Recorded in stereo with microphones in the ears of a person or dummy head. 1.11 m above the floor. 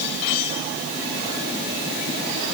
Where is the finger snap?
I don't hear a finger snap.